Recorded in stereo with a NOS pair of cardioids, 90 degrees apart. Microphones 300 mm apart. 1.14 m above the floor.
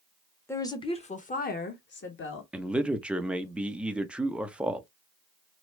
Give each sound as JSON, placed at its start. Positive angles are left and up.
{"t": 0.5, "sound": "a woman speaking", "azimuth_deg": 10, "distance_m": 1.1}
{"t": 2.5, "sound": "a man speaking", "azimuth_deg": -5, "distance_m": 0.7}